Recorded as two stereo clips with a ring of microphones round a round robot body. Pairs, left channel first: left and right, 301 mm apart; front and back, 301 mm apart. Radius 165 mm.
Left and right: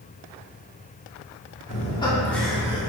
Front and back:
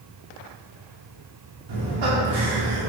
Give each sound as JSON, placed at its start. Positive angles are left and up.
{"t": 1.7, "sound": "laughter", "azimuth_deg": 155, "distance_m": 2.5}